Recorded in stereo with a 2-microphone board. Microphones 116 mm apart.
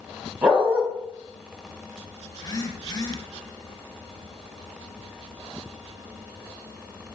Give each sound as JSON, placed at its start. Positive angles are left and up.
{"t": 0.4, "sound": "a dog barking", "side_deg": -10, "distance_m": 3.0}
{"t": 2.3, "sound": "a phone buzzing", "side_deg": 35, "distance_m": 1.1}